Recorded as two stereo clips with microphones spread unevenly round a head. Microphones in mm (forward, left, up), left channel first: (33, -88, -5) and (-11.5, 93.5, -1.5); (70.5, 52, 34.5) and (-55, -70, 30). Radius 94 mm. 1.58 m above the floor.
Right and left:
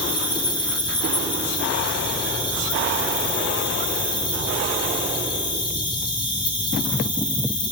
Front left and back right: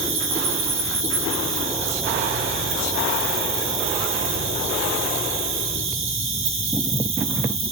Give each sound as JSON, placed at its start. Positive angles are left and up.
{"t": 0.0, "sound": "an insect", "azimuth_deg": -140, "distance_m": 1.3}